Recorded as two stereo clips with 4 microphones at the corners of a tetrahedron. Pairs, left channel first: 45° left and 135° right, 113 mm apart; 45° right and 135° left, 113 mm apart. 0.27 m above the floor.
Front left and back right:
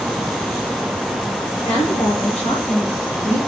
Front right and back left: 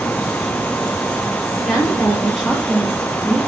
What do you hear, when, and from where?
1.6 s a woman speaking: 45° left, 3.5 m; by 3.4 s 30° left, 4 m